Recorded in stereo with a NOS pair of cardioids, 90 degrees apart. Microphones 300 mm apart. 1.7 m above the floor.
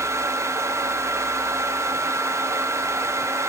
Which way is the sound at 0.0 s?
10° right.